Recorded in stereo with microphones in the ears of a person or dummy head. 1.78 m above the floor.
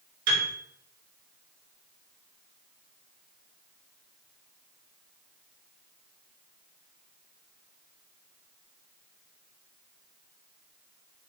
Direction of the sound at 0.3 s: 70° right (ahead or behind).